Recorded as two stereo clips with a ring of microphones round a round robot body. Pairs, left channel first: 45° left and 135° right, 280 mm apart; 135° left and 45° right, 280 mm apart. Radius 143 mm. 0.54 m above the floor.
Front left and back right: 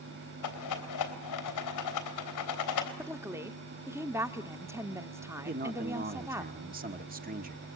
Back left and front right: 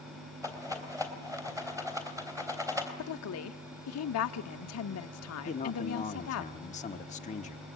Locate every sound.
0.4 s a rattle: 30° left, 3.5 m
3.0 s a woman speaking: 145° left, 1.0 m
5.5 s a man speaking: 175° right, 1.2 m